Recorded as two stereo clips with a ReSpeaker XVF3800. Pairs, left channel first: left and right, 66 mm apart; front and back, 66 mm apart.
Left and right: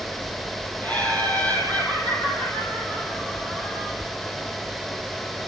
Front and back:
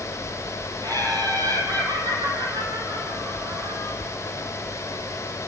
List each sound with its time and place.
0.8 s laughter: 155° left, 7 m; by 3.9 s 165° left, 8 m